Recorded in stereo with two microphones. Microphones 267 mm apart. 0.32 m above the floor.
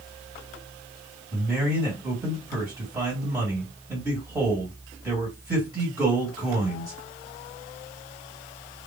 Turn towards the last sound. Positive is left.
turn(degrees=-10)  # may be behind; listen again after turning